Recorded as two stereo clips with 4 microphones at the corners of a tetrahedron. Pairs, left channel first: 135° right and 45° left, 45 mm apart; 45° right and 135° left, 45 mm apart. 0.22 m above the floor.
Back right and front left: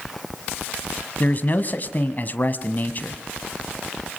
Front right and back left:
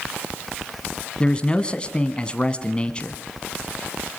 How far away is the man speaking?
About 1.5 m.